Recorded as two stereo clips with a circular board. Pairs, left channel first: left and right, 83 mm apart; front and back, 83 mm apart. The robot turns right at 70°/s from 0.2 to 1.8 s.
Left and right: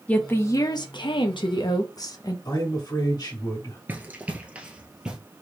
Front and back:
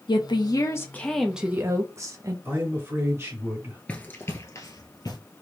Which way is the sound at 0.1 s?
20° left.